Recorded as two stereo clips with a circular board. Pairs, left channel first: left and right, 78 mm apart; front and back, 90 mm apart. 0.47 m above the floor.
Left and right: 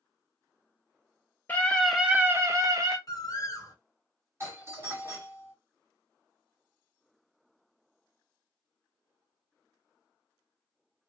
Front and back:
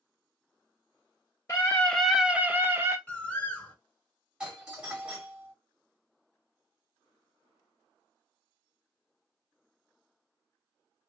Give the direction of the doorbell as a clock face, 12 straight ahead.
4 o'clock.